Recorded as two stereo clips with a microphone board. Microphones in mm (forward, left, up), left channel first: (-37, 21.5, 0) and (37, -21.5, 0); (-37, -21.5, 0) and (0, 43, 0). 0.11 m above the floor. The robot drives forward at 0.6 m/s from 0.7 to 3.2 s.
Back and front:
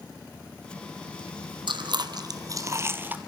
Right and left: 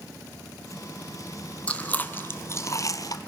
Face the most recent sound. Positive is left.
turn(degrees=-100)